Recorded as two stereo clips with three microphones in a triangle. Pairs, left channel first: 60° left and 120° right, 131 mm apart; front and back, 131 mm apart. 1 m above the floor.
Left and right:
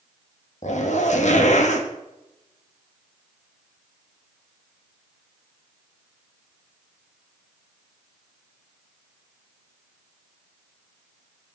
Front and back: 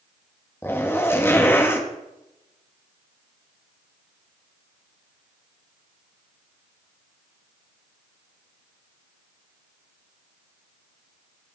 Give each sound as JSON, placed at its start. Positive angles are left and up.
{"t": 0.6, "sound": "a zipper", "azimuth_deg": 70, "distance_m": 1.8}